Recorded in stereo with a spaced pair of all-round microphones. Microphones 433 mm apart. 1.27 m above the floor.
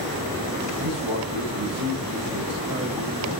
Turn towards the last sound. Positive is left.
turn(degrees=-75)  # may be behind; listen again after turning